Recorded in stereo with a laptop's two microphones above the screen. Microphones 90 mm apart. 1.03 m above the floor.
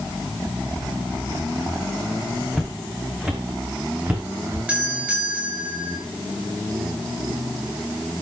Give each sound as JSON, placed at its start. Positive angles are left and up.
{"t": 2.5, "sound": "footsteps", "side_deg": 0, "distance_m": 3.0}
{"t": 4.7, "sound": "a doorbell", "side_deg": -15, "distance_m": 8.5}